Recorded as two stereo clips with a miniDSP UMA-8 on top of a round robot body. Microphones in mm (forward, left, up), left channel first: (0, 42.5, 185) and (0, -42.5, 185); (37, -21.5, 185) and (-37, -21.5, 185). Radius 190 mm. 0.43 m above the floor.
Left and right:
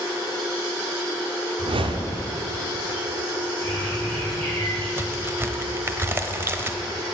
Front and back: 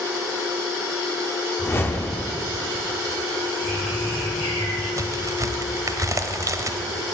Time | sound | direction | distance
1.6 | a whoosh | 65° right | 0.9 m
3.6 | a bird | 20° left | 5 m
5.0 | a crack | 150° right | 1.2 m